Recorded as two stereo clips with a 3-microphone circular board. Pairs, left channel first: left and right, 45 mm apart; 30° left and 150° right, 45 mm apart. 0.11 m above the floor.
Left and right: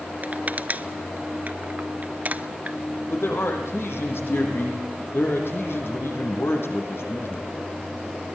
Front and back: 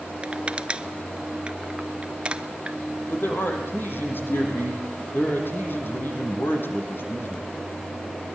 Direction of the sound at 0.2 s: 100° right.